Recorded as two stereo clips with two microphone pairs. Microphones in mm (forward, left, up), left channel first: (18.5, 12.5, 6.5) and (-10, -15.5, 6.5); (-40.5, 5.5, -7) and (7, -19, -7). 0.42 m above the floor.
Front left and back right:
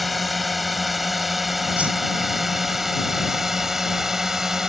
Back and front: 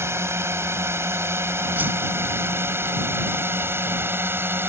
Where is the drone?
45° right; by 4.7 s 60° right.